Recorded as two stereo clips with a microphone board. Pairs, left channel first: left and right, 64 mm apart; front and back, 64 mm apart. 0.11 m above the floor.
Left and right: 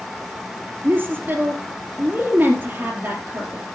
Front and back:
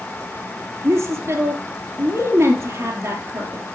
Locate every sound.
0.8 s a woman speaking: 135° right, 2.5 m